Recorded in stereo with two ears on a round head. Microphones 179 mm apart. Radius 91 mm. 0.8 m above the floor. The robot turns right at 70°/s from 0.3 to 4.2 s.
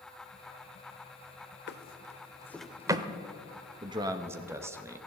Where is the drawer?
60° left (ahead or behind), 0.8 m; by 3.1 s 25° right (ahead or behind), 0.8 m.